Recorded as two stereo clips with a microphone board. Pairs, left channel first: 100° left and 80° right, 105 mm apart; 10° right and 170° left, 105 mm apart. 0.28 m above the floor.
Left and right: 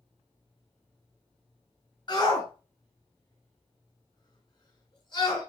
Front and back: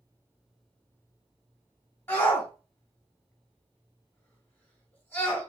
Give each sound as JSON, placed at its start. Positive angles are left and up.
{"t": 2.1, "sound": "a shout", "azimuth_deg": 55, "distance_m": 2.0}